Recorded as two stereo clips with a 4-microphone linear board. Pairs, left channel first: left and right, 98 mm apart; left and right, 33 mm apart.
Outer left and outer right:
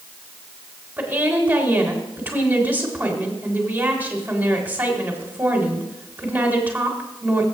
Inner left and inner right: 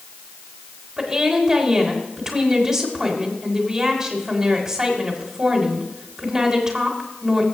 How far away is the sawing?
I don't hear sawing.